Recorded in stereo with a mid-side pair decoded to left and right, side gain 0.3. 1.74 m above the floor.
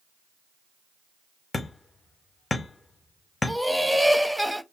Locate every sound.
1.5 s hammering: 40° left, 0.9 m
3.5 s laughter: straight ahead, 0.7 m